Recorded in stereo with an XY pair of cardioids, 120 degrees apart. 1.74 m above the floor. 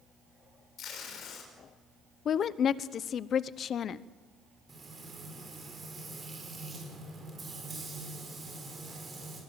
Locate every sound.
0.8 s tape being pulled: 60° left, 6.5 m
2.2 s a woman speaking: 50° left, 0.9 m
4.7 s frying: 25° right, 7 m